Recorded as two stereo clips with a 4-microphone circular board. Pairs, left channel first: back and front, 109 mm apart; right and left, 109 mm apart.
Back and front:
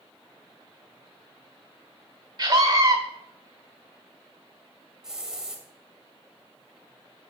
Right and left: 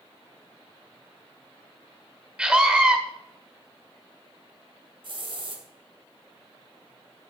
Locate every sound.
2.4 s a scream: 15° left, 1.2 m
5.0 s a hiss: 80° left, 2.5 m